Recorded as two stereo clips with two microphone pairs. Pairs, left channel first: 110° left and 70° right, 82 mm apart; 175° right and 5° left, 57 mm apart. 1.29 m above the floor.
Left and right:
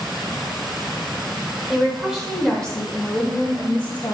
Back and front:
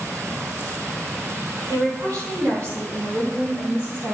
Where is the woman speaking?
10° left, 4 m; by 4.2 s 50° left, 5 m.